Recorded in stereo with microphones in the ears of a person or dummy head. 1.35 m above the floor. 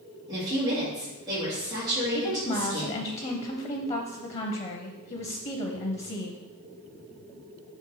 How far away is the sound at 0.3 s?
About 2 m.